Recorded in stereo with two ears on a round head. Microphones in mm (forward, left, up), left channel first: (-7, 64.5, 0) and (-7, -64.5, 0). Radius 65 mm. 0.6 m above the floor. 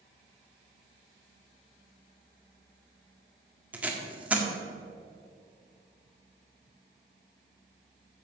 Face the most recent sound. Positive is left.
turn(degrees=-10)  # may be behind; listen again after turning